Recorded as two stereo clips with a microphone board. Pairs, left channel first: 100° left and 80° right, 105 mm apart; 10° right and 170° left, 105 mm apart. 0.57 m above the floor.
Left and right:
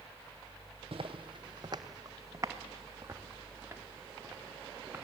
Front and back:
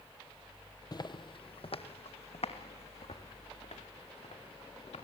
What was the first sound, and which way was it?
Footsteps, 55° right.